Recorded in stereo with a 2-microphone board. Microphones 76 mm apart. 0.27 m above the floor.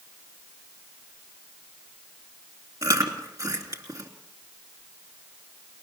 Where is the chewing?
50° right (ahead or behind), 3 m.